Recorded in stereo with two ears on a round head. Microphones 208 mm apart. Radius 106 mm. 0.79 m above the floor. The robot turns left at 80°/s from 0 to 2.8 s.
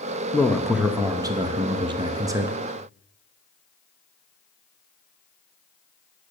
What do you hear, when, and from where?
0.3 s a man speaking: 10° left (ahead or behind), 0.7 m; by 2.5 s 10° right (ahead or behind), 0.7 m